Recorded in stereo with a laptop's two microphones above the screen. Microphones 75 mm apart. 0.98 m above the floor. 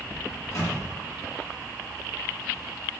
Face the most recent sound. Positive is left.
turn(degrees=45)  # may be behind; listen again after turning